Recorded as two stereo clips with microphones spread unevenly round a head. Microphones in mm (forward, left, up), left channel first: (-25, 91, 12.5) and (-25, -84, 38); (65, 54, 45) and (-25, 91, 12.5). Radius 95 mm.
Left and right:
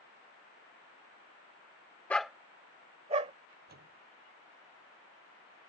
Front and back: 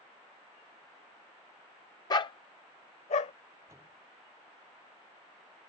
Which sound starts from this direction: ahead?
A dog barking, at 2.1 s.